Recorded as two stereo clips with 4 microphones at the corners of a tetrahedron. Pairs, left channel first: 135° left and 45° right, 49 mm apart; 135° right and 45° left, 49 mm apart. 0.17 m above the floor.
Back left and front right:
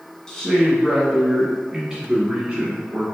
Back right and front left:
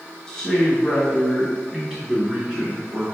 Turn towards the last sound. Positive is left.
turn(degrees=0)